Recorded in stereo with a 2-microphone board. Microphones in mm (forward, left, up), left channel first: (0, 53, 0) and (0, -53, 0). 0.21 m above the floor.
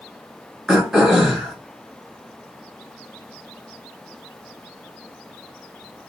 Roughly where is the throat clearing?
Centre.